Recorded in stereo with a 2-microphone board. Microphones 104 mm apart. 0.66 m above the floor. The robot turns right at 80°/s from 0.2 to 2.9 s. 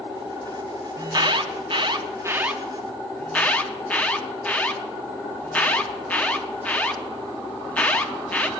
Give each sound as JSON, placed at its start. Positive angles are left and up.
{"t": 1.0, "sound": "an alarm", "side_deg": -35, "distance_m": 0.7}